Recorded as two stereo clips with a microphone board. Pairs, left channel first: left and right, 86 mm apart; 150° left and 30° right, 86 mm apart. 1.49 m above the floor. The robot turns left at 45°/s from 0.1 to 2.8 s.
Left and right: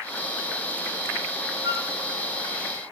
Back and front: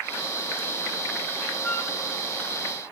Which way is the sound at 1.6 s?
140° right.